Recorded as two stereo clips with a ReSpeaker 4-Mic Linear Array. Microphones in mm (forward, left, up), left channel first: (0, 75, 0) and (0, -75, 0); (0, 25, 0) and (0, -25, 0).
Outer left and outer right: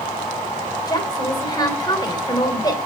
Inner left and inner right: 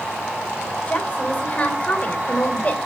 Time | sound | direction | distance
0.9 | a woman speaking | 30° left (ahead or behind) | 3 m